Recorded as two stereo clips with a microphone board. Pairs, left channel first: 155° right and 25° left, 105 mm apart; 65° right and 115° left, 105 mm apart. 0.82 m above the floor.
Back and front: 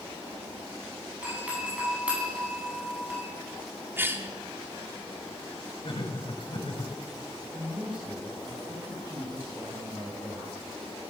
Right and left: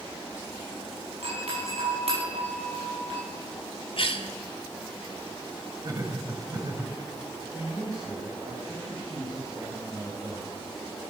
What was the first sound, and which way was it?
A doorbell, 100° left.